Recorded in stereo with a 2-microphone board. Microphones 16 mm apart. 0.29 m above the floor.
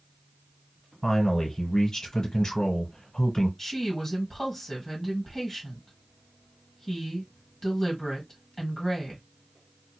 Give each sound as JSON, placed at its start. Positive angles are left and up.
{"t": 1.0, "sound": "a man speaking", "side_deg": 35, "distance_m": 1.5}
{"t": 3.6, "sound": "a woman speaking", "side_deg": 15, "distance_m": 1.8}